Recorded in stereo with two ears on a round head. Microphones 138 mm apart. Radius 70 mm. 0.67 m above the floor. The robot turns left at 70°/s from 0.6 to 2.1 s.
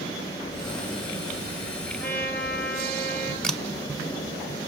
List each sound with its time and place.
2.0 s a trumpet: 65° left (ahead or behind), 7.5 m; by 3.3 s 70° left (ahead or behind), 7.5 m
3.4 s a camera shutter: 5° left (ahead or behind), 1.1 m